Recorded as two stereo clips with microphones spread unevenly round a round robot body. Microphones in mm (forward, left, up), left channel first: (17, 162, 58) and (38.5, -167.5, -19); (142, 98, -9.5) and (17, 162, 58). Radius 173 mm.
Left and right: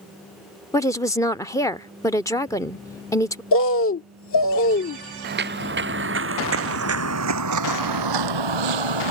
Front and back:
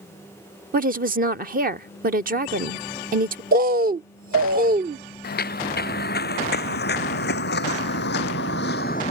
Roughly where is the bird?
Behind left.